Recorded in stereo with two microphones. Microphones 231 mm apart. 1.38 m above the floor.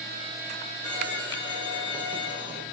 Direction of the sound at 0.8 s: 25° right (ahead or behind).